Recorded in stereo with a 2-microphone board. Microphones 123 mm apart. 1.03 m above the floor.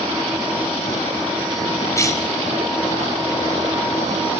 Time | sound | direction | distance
1.9 | a cough | 25° left (ahead or behind) | 5.5 m